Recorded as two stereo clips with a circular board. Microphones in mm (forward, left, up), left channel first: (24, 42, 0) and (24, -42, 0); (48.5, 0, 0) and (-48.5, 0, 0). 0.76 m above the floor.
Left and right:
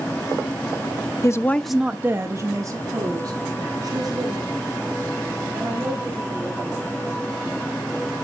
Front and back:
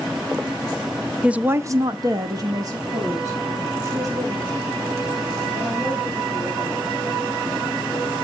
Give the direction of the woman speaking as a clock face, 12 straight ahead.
9 o'clock.